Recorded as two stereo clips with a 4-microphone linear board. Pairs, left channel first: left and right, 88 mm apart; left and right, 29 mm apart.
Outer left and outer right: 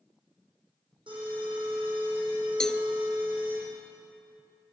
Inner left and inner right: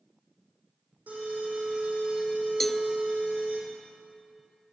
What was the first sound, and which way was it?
An alarm, 75° right (ahead or behind).